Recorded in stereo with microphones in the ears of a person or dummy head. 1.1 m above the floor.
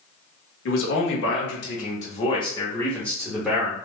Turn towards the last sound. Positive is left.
turn(degrees=-5)  # may be behind; listen again after turning